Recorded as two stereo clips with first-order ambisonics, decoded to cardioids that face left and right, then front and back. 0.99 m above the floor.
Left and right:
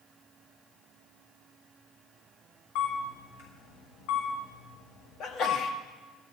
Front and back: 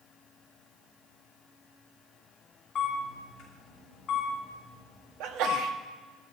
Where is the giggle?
I don't hear a giggle.